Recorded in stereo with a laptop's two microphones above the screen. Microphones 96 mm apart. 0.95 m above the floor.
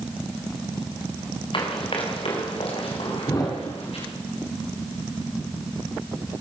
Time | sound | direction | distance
1.5 | running footsteps | 60° left (ahead or behind) | 5 m
3.3 | a thud | 35° left (ahead or behind) | 5 m